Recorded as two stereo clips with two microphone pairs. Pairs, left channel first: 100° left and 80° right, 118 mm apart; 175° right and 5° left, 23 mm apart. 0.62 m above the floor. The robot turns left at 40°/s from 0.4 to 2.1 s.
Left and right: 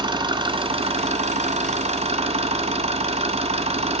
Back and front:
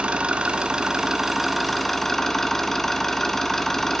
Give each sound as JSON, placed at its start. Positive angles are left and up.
{"t": 0.0, "sound": "an engine running", "azimuth_deg": -35, "distance_m": 1.2}